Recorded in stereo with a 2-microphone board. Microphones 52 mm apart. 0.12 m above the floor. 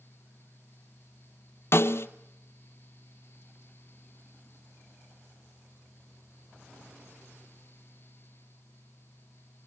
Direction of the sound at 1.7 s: 55° left (ahead or behind).